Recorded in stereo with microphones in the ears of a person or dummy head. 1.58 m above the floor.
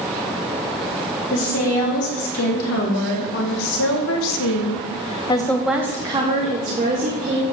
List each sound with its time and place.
1.3 s a woman speaking: 80° left, 3 m; by 7.4 s 45° right (ahead or behind), 1.7 m